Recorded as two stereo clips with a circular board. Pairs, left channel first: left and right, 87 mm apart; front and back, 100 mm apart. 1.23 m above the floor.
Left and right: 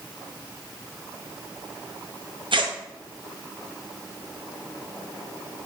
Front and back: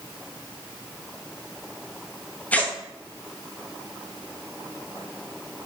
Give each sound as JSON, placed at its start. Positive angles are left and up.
{"t": 2.5, "sound": "tearing paper", "azimuth_deg": -75, "distance_m": 0.6}